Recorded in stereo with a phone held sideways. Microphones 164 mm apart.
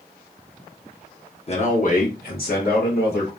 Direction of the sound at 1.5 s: 40° left (ahead or behind).